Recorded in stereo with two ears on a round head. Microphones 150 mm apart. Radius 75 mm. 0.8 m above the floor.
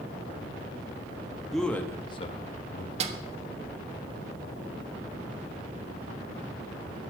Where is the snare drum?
40° right (ahead or behind), 1.1 m.